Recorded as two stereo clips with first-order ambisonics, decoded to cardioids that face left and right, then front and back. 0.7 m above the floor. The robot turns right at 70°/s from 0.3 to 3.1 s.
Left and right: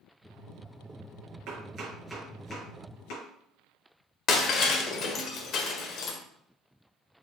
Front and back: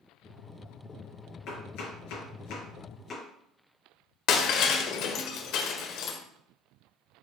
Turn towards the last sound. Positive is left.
turn(degrees=40)